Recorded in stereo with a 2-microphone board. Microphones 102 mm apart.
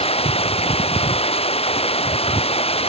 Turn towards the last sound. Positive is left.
turn(degrees=75)  # may be behind; listen again after turning